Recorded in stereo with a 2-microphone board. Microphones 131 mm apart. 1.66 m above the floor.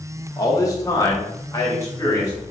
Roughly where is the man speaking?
Left.